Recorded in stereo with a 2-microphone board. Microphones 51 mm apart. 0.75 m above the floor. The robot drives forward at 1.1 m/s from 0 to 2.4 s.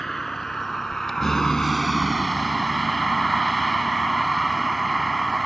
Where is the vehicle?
5° left (ahead or behind); by 5.5 s 10° left (ahead or behind).